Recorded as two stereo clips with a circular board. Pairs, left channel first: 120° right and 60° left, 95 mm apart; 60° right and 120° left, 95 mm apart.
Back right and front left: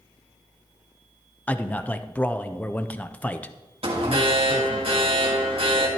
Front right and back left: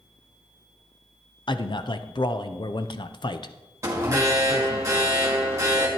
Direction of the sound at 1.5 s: 50° right.